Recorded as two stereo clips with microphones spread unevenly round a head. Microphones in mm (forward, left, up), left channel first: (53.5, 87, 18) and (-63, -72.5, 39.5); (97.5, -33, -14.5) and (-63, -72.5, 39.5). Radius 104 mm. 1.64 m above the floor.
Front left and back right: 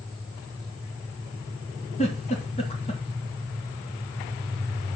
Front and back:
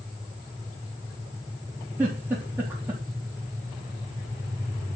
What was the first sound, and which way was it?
A giggle, 115° left.